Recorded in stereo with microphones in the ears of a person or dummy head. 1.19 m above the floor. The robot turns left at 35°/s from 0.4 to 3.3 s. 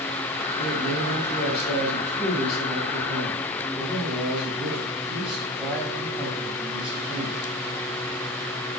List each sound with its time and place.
0.6 s a man speaking: 85° left, 7 m; by 7.3 s 10° right, 7 m